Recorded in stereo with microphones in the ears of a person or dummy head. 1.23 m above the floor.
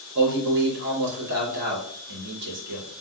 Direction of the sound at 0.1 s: 60° right (ahead or behind).